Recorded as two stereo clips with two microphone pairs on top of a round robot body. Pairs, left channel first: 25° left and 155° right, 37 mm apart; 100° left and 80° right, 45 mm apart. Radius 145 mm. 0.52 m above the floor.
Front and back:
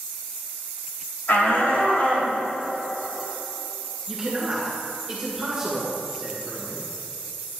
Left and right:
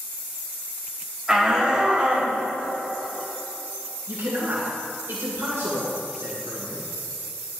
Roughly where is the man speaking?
Right.